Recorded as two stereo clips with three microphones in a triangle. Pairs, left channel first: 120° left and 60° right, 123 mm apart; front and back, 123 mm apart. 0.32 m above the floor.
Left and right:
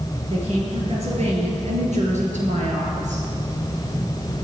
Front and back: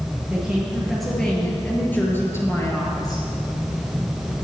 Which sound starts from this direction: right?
A woman speaking, at 0.3 s.